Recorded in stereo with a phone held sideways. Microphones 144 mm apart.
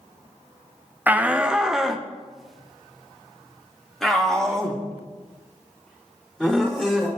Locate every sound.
1.1 s a shout: 15° right (ahead or behind), 0.7 m; by 7.1 s 5° left (ahead or behind), 5 m